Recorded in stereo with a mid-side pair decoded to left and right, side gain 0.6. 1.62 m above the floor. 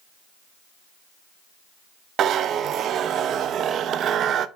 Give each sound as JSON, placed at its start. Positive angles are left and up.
{"t": 2.2, "sound": "a zipper", "azimuth_deg": -50, "distance_m": 0.6}